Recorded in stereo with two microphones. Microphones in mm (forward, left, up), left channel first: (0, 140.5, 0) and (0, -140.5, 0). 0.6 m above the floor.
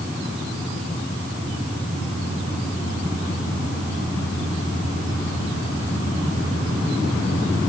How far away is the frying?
I don't hear frying.